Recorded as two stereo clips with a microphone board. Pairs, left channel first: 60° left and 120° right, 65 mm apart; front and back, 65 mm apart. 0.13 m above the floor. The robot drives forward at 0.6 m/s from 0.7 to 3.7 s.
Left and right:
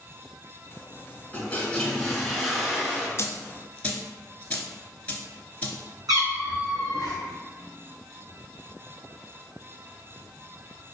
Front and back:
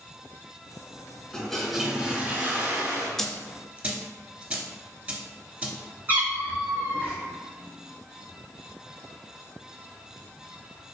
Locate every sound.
1.3 s a toilet flushing: 60° left, 0.8 m; by 3.1 s 160° left, 1.2 m
3.2 s a dropped coin: 80° left, 0.5 m; by 5.8 s 125° left, 0.6 m
6.1 s a cat meowing: 115° right, 1.2 m